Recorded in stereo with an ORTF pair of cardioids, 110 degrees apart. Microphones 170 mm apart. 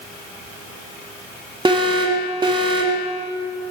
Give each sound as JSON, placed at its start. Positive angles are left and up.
{"t": 1.6, "sound": "an alarm", "azimuth_deg": -30, "distance_m": 1.4}